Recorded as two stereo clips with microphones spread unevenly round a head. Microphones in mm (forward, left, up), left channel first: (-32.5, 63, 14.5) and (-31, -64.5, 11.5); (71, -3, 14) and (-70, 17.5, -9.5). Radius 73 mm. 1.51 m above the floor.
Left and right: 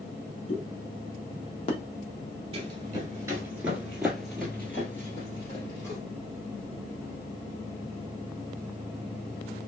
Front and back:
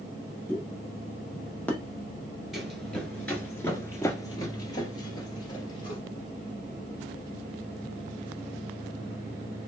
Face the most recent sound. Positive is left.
turn(degrees=30)